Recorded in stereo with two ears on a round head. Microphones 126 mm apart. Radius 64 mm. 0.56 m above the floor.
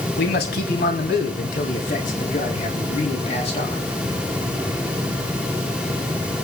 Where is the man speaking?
75° left (ahead or behind), 4.5 m; by 3.8 s 45° left (ahead or behind), 6.5 m.